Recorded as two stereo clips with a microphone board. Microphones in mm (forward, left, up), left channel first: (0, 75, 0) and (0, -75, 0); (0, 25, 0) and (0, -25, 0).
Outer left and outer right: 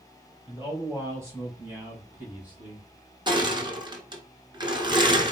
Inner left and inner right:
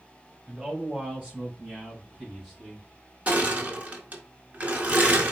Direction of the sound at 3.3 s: 30° right (ahead or behind).